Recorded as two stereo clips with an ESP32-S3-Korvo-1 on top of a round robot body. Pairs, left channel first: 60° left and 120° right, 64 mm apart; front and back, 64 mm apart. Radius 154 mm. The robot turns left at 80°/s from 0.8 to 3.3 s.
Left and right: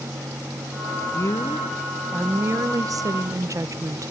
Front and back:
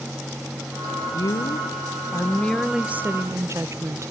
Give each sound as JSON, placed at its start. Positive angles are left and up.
{"t": 1.1, "sound": "a woman speaking", "azimuth_deg": 30, "distance_m": 0.9}